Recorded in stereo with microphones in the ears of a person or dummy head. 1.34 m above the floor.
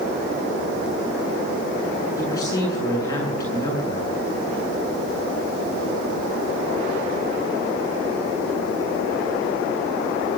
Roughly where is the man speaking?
Left.